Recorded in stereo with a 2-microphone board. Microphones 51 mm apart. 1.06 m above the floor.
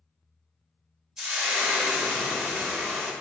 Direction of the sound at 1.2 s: 15° right (ahead or behind).